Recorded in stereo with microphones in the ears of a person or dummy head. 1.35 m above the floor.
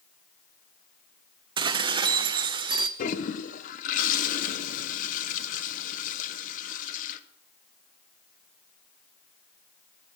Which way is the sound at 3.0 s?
50° left (ahead or behind).